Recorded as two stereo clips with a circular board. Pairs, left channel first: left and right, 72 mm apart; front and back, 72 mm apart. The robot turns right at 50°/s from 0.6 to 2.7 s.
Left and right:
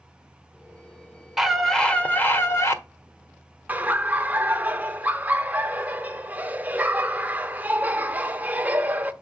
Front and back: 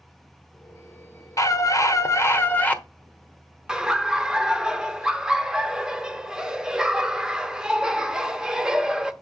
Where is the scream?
5° right, 1.4 m; by 2.8 s 60° left, 1.4 m.